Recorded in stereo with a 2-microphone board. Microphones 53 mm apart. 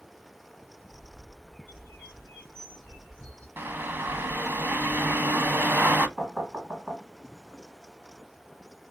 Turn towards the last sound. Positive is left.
turn(degrees=-20)  # may be behind; listen again after turning